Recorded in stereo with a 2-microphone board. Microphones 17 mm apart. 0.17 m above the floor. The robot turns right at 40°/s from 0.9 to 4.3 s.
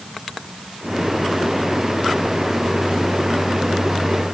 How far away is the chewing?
No chewing in this recording.